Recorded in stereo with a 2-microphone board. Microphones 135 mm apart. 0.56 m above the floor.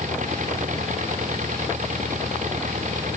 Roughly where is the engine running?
Right.